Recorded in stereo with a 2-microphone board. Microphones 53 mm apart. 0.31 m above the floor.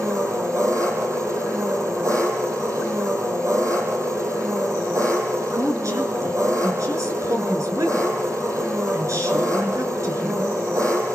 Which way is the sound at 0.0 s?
75° right (ahead or behind).